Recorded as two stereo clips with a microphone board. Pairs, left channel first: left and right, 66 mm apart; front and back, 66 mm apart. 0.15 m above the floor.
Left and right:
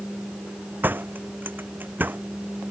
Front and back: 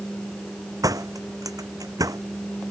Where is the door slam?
150° right.